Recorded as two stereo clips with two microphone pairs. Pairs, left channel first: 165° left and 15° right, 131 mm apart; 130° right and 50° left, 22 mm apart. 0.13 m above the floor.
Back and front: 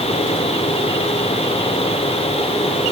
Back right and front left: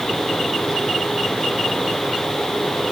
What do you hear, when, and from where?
Only background noise.